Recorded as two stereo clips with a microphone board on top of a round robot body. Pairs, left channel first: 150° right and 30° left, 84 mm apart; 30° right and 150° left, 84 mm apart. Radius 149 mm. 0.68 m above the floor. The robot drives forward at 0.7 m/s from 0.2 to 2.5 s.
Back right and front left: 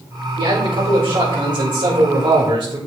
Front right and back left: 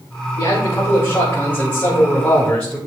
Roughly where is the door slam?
No door slam in this recording.